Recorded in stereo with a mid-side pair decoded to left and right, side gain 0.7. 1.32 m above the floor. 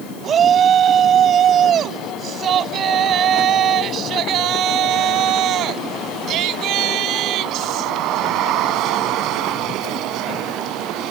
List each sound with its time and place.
0.2 s a shout: 35° right; by 11.1 s 60° right